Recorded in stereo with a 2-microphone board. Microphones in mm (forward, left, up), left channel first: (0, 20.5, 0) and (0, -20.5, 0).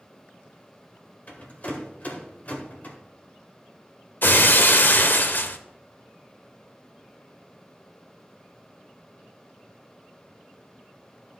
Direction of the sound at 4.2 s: 50° left (ahead or behind).